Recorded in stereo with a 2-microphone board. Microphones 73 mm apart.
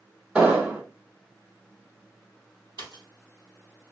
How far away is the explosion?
About 1.6 m.